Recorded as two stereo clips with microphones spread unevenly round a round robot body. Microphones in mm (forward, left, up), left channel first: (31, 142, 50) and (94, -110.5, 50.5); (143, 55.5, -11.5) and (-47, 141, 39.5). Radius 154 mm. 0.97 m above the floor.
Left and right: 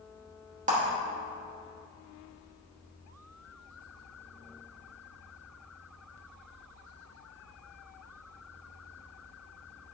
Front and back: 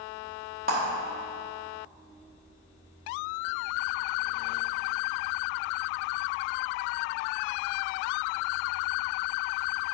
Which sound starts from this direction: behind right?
A clap, at 0.7 s.